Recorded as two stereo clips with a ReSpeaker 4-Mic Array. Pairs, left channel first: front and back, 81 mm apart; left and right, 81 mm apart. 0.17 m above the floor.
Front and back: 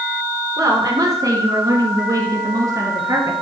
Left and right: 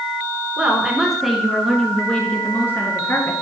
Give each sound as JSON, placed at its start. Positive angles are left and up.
{"t": 0.6, "sound": "a woman speaking", "azimuth_deg": -160, "distance_m": 2.5}